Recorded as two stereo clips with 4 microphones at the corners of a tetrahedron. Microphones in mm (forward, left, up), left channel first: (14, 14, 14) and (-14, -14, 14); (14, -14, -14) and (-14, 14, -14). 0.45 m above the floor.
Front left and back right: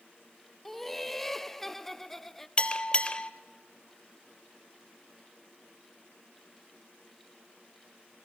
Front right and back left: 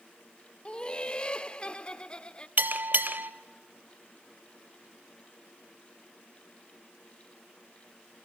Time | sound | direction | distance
0.7 | laughter | 30° right | 0.8 m
2.6 | a bell | 105° left | 0.9 m